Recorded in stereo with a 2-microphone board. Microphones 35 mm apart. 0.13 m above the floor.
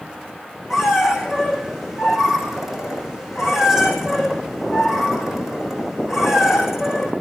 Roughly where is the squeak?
Centre.